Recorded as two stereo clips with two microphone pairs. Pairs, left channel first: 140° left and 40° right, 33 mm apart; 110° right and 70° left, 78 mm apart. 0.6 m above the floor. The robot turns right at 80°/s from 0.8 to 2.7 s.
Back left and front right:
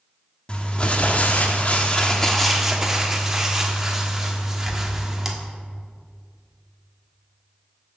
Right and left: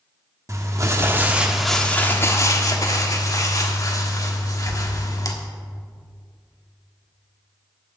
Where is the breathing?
No breathing in this recording.